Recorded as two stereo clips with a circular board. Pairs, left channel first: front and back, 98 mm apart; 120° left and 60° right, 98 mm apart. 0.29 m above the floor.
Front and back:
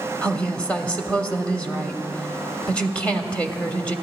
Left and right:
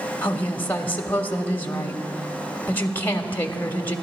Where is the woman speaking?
65° left, 1.1 m.